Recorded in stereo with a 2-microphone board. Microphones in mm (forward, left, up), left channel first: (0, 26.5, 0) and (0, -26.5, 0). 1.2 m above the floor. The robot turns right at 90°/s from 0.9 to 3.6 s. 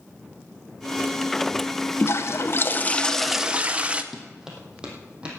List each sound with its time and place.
2.0 s a toilet flushing: 65° left, 0.9 m; by 4.0 s 150° right, 0.9 m
4.1 s running footsteps: 5° right (ahead or behind), 3 m; by 5.4 s 20° right (ahead or behind), 3.5 m